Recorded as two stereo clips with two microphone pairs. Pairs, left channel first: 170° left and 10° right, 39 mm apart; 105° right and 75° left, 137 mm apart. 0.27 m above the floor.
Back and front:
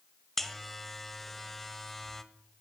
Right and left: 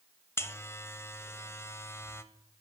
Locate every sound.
0.4 s a buzzer: 115° right, 1.0 m